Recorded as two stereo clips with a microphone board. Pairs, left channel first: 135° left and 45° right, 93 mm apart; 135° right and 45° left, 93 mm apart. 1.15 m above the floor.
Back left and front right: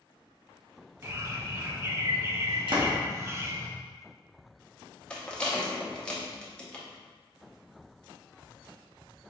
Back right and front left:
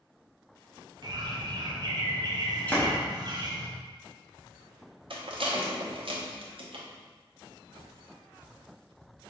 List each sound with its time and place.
1.0 s a bird: 15° left, 0.6 m
2.7 s a door slam: 65° right, 0.8 m
5.1 s a rattle: 55° left, 0.7 m